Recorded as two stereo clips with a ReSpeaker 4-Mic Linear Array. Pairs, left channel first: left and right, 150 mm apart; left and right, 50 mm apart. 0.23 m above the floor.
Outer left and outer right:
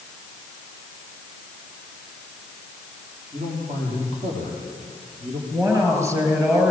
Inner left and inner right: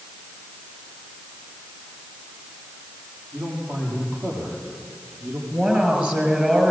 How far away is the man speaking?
About 9.5 m.